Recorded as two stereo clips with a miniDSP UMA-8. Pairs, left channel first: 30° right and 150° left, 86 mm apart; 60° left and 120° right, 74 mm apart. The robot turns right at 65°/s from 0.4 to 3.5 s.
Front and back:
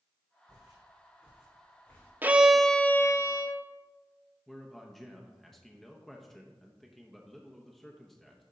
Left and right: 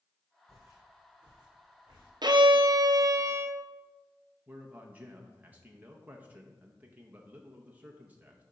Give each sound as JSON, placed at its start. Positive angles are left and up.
{"t": 0.5, "sound": "footsteps", "azimuth_deg": -175, "distance_m": 2.5}
{"t": 2.2, "sound": "a violin", "azimuth_deg": -140, "distance_m": 0.6}
{"t": 4.5, "sound": "a man speaking", "azimuth_deg": -110, "distance_m": 0.8}